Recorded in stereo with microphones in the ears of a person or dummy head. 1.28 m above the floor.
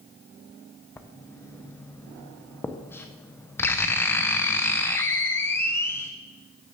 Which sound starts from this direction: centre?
Writing, at 1.0 s.